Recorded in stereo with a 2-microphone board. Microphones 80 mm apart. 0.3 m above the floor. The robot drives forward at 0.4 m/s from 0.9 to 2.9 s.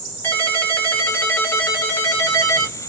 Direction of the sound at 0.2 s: 25° left (ahead or behind).